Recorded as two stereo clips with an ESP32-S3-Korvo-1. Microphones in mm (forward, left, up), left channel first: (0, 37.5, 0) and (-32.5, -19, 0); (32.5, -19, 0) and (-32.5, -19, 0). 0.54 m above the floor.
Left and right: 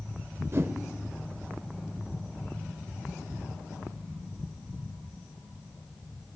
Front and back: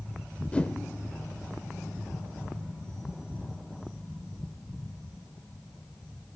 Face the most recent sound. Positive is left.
turn(degrees=-75)